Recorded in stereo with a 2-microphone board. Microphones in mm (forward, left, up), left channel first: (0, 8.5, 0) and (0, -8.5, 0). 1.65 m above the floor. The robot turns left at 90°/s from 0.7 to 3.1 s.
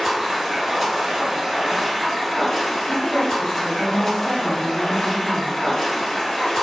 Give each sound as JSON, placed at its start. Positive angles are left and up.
{"t": 0.0, "sound": "running water", "azimuth_deg": -50, "distance_m": 1.0}
{"t": 2.9, "sound": "a woman speaking", "side_deg": 5, "distance_m": 0.8}